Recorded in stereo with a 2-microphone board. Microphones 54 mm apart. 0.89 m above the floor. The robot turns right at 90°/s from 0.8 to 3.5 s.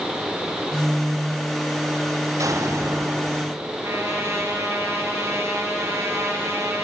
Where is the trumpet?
55° right (ahead or behind), 3.5 m.